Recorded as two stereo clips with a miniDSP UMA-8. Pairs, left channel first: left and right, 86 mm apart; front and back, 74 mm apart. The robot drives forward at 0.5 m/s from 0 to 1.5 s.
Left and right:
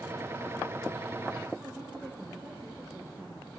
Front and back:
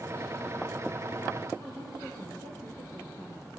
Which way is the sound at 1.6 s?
160° right.